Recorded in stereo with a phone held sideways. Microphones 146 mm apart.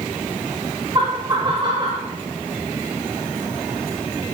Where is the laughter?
30° right (ahead or behind), 2.5 m; by 2.1 s 35° right (ahead or behind), 3 m.